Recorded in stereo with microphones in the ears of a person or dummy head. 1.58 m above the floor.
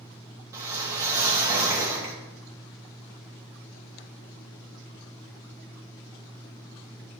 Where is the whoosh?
20° right (ahead or behind), 1.1 m.